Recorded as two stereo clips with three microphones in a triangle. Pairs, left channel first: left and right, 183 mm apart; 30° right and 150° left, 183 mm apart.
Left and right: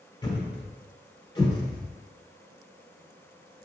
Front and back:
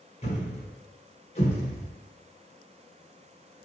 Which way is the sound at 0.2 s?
25° left.